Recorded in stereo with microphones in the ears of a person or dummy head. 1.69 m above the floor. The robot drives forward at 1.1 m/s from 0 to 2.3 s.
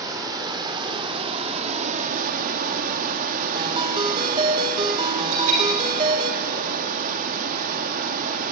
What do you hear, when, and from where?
0.0 s running water: 25° right (ahead or behind), 4 m; by 8.5 s 50° right (ahead or behind), 2.0 m
3.5 s a ringtone: 30° right (ahead or behind), 1.3 m
5.3 s a bell: 35° right (ahead or behind), 1.6 m